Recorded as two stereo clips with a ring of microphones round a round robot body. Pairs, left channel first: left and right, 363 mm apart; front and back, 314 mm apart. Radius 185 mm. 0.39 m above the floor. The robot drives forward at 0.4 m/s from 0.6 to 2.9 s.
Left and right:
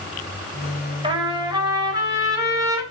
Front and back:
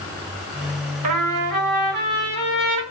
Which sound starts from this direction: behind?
A trumpet, at 1.0 s.